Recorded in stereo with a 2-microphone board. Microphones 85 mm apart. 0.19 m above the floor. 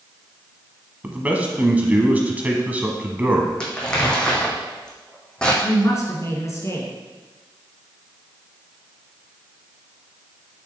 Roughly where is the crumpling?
Centre.